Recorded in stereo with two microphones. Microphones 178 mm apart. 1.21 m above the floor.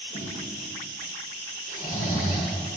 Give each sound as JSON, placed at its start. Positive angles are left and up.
{"t": 0.1, "sound": "a snare drum", "side_deg": 50, "distance_m": 1.4}
{"t": 1.7, "sound": "snoring", "side_deg": 50, "distance_m": 1.3}